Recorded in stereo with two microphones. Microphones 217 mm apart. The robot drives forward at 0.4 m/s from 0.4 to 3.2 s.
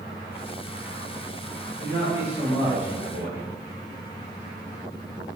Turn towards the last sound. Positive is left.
turn(degrees=-55)  # may be behind; listen again after turning